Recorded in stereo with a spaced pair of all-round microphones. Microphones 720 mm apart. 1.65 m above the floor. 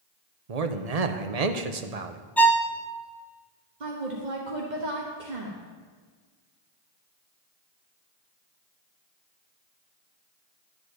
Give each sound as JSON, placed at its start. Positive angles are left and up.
{"t": 0.5, "sound": "a man speaking", "side_deg": -60, "distance_m": 0.9}
{"t": 2.4, "sound": "a violin", "side_deg": 0, "distance_m": 0.6}
{"t": 3.8, "sound": "a woman speaking", "side_deg": -85, "distance_m": 1.4}